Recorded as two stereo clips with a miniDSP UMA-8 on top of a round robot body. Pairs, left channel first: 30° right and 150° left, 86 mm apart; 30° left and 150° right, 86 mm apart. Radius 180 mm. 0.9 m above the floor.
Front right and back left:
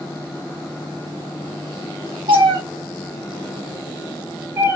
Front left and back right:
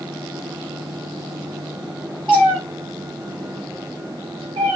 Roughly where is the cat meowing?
Behind left.